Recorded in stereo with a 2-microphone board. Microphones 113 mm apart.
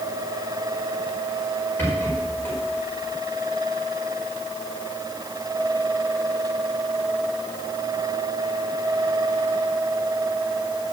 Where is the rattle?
15° left (ahead or behind), 5.5 m.